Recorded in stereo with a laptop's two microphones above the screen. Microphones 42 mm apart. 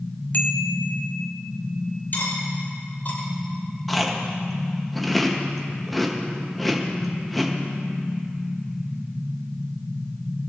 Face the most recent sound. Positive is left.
turn(degrees=5)  # may be behind; listen again after turning